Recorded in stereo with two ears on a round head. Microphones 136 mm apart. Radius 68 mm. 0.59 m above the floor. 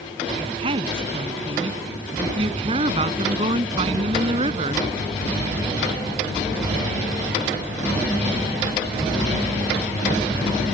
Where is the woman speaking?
40° right (ahead or behind).